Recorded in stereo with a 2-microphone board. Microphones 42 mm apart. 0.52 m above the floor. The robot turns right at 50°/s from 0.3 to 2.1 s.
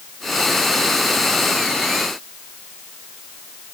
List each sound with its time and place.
Only background noise.